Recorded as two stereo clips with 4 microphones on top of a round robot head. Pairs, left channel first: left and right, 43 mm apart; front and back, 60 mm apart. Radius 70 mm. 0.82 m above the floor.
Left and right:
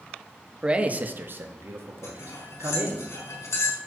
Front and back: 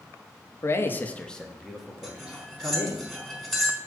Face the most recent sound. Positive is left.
turn(degrees=90)